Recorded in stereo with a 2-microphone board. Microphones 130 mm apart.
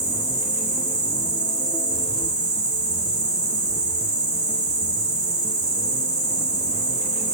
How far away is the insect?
About 3.5 m.